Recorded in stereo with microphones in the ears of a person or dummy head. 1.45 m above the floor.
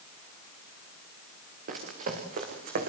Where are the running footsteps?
50° right (ahead or behind), 6.5 m; by 2.9 s 55° right (ahead or behind), 5 m.